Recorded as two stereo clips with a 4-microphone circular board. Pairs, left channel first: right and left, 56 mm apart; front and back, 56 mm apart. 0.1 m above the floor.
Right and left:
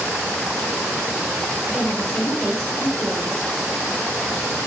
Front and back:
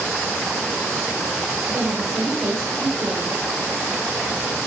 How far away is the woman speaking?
About 3 m.